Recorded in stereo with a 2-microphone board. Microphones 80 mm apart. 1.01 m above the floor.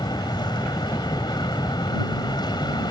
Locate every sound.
0.0 s an aircraft: 65° left (ahead or behind)